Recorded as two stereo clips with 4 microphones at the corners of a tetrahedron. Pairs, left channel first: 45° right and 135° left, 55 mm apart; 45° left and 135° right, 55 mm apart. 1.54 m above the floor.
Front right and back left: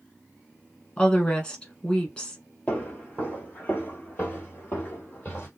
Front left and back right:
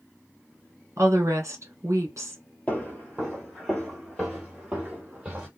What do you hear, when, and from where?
1.0 s a woman speaking: 110° right, 1.5 m
2.7 s footsteps: straight ahead, 1.7 m; by 5.5 s 80° right, 2 m